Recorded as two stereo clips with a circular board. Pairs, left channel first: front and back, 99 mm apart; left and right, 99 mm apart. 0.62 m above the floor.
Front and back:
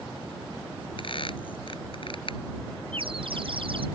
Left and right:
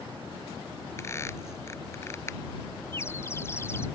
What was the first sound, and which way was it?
A squeak, 30° left.